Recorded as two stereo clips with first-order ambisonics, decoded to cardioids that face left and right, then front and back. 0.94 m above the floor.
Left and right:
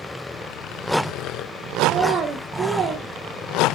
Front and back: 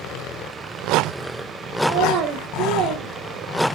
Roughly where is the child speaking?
Behind right.